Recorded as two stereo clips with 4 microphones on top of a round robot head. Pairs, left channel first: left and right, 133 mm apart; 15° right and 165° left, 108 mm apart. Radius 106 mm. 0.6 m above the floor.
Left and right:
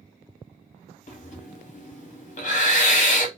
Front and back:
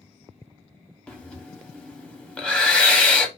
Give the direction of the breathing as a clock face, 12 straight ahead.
10 o'clock.